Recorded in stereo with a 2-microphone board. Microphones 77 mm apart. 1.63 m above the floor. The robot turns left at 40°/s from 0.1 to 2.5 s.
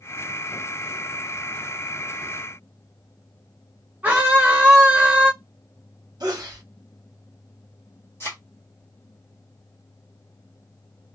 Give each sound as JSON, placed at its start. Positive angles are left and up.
{"t": 4.0, "sound": "a scream", "side_deg": -20, "distance_m": 1.3}
{"t": 6.2, "sound": "a sneeze", "side_deg": -60, "distance_m": 1.4}
{"t": 8.2, "sound": "a thud", "side_deg": 30, "distance_m": 1.4}